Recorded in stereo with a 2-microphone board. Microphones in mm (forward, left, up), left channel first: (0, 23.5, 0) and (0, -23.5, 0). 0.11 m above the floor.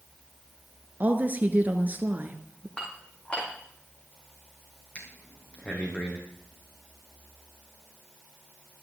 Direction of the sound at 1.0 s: 40° right (ahead or behind).